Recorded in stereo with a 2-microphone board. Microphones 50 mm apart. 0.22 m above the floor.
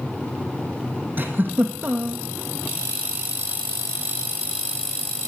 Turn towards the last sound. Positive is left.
turn(degrees=-45)  # may be behind; listen again after turning